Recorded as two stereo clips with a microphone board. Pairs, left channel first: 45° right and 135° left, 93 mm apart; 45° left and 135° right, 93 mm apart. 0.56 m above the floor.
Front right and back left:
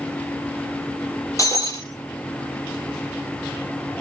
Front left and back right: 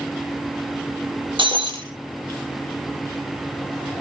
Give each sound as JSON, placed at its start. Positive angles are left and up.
{"t": 1.4, "sound": "breaking glass", "azimuth_deg": -105, "distance_m": 6.5}